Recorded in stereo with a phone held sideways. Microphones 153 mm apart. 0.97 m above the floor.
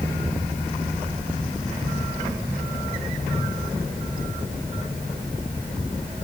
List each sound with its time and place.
Only background noise.